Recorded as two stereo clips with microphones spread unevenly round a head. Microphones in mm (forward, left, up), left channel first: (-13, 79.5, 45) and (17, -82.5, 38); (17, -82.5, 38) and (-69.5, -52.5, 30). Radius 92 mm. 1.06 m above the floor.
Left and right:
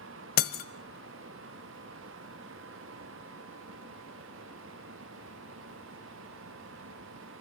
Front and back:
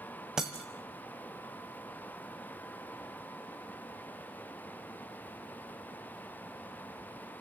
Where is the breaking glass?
70° left, 1.3 m.